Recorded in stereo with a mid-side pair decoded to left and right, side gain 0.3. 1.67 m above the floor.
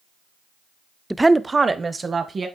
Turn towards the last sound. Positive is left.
turn(degrees=-50)